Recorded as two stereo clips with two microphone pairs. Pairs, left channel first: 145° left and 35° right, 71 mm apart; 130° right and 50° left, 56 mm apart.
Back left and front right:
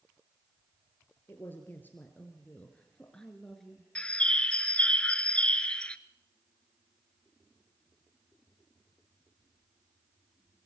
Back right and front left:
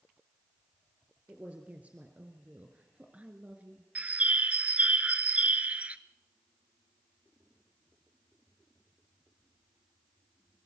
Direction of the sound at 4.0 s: 90° left.